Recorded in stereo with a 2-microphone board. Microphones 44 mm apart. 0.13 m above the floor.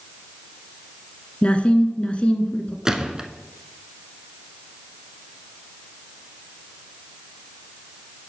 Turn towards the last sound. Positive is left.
turn(degrees=-15)  # may be behind; listen again after turning